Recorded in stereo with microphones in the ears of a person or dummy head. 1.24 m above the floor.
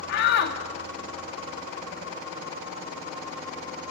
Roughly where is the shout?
Left.